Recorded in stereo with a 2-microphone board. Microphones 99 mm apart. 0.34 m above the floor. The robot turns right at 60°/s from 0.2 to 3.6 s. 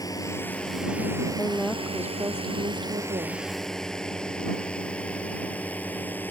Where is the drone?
40° left (ahead or behind); by 6.3 s 20° left (ahead or behind).